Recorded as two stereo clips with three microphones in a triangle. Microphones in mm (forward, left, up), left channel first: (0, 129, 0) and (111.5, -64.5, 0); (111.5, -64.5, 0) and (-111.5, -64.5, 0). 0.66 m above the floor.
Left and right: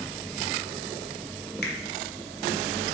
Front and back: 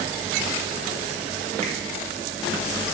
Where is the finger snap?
130° left, 0.5 m.